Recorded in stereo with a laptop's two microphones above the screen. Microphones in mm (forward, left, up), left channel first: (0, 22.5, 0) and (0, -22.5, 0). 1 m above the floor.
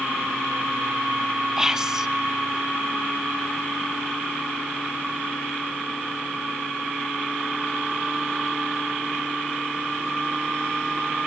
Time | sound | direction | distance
1.6 | whispering | 15° right (ahead or behind) | 0.5 m